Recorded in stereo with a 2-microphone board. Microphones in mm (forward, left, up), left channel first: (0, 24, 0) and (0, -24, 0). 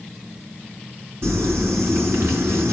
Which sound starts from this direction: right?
Crumpling, at 1.2 s.